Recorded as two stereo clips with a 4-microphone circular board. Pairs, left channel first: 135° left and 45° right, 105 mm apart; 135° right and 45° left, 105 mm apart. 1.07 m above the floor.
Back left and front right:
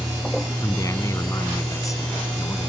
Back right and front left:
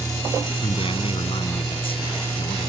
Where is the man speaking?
165° right.